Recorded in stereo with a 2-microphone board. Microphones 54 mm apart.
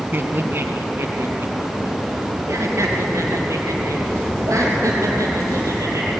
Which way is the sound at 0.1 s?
40° right (ahead or behind).